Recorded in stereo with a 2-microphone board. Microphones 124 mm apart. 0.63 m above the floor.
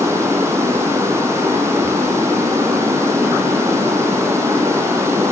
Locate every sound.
0.0 s running water: 20° right (ahead or behind), 2.5 m